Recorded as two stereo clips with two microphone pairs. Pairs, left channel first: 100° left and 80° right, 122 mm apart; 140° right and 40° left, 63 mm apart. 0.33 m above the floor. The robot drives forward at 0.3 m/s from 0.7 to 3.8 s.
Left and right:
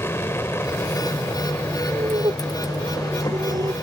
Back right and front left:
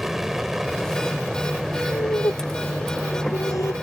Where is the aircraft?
115° left; by 3.8 s 120° left.